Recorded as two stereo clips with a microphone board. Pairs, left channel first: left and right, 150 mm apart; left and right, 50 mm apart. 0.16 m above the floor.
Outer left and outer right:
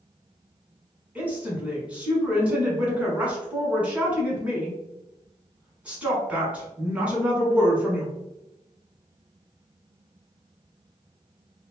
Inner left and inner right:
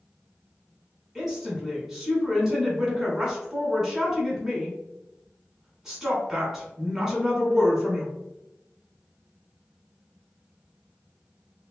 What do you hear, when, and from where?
1.1 s a woman speaking: 10° right (ahead or behind), 1.2 m